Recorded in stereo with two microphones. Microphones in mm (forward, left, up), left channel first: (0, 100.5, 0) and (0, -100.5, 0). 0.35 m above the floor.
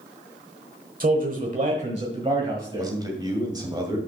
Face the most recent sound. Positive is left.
turn(degrees=-20)  # may be behind; listen again after turning